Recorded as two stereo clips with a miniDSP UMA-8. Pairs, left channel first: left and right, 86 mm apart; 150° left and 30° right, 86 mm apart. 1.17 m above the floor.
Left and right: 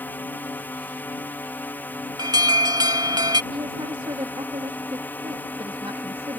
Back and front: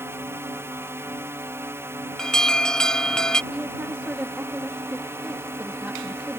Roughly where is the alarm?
Behind right.